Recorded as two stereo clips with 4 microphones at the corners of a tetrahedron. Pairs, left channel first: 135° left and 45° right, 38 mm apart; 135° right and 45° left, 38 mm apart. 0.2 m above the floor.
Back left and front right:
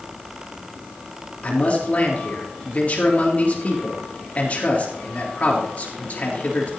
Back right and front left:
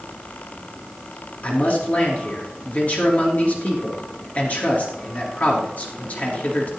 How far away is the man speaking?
About 3.5 m.